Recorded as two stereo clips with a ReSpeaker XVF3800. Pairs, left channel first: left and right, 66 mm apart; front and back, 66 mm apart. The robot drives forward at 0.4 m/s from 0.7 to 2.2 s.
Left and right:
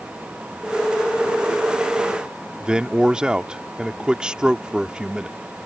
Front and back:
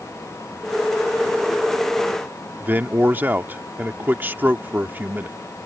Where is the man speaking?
155° right.